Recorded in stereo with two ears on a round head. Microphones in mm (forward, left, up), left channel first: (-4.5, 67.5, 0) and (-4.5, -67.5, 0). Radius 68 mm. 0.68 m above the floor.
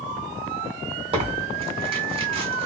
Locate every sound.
1.1 s tearing paper: 35° right (ahead or behind), 1.3 m